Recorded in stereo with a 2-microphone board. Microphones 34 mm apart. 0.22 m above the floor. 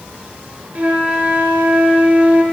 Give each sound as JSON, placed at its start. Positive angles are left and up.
{"t": 0.8, "sound": "a flute", "side_deg": -40, "distance_m": 1.1}